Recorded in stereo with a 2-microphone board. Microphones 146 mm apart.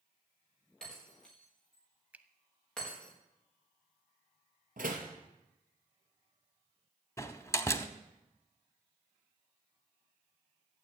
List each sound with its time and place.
0.8 s breaking glass: 5° left (ahead or behind), 8.5 m
2.1 s a finger snap: 10° right (ahead or behind), 0.8 m
4.8 s a door slam: 80° right, 3 m
7.2 s a door slam: 20° left (ahead or behind), 0.9 m